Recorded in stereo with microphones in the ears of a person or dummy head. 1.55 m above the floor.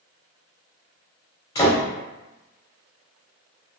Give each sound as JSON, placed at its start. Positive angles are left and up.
{"t": 1.6, "sound": "a door slam", "side_deg": 20, "distance_m": 1.6}